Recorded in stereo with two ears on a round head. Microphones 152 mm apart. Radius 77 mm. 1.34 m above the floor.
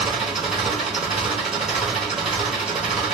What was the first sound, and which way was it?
An engine running, 5° right (ahead or behind).